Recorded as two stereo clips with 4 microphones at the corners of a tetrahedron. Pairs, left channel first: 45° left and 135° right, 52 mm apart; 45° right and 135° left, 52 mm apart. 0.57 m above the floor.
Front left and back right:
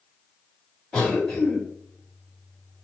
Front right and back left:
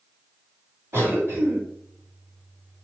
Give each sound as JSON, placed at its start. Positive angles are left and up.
{"t": 0.9, "sound": "a cough", "azimuth_deg": 115, "distance_m": 1.9}